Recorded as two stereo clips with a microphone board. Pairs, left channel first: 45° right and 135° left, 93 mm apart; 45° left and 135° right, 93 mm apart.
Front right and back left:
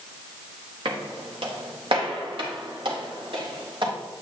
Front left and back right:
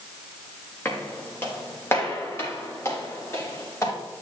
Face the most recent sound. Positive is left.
turn(degrees=105)